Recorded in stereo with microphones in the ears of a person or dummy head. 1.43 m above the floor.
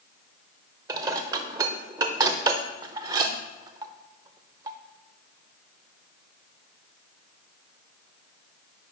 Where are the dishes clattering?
25° right (ahead or behind), 0.6 m.